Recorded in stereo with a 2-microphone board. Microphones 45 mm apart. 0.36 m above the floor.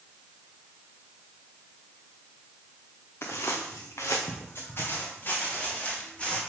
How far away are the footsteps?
About 2 m.